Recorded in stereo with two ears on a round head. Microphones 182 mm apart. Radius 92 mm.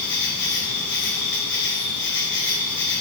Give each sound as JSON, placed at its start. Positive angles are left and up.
{"t": 0.0, "sound": "an insect", "side_deg": 60, "distance_m": 4.5}